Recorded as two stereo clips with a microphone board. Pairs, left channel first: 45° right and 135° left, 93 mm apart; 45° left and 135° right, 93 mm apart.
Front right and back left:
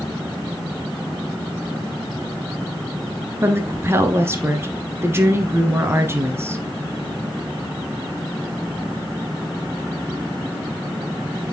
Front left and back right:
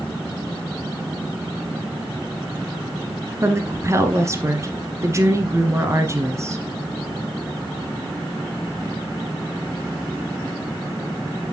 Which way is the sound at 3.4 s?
175° right.